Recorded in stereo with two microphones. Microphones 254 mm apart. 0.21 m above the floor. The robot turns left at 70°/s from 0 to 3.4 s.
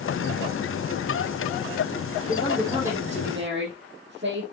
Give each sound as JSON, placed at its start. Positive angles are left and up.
{"t": 2.3, "sound": "a woman speaking", "azimuth_deg": 30, "distance_m": 6.5}